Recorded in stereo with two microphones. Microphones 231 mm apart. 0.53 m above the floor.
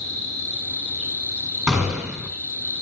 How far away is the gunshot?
About 6.5 m.